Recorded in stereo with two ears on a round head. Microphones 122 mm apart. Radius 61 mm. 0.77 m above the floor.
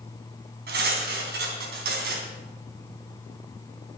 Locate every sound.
0.7 s cutlery clinking: 80° right, 3.5 m